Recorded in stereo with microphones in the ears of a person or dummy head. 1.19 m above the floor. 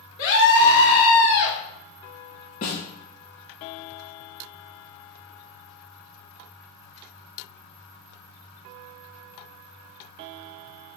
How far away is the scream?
About 3.5 m.